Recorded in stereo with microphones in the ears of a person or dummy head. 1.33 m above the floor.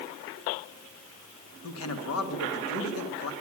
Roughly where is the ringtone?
No ringtone in this recording.